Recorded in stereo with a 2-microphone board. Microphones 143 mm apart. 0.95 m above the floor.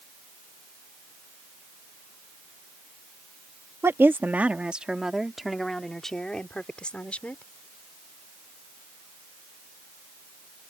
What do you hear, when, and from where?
3.8 s a woman speaking: 20° right (ahead or behind); by 7.4 s 10° left (ahead or behind)